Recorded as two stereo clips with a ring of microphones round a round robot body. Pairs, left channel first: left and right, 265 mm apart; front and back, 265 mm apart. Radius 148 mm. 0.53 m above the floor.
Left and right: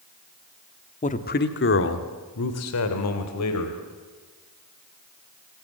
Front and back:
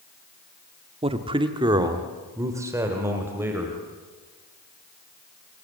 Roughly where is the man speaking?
Behind left.